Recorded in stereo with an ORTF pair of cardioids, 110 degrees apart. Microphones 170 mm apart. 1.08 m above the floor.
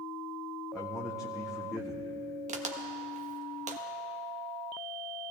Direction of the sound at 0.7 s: Straight ahead.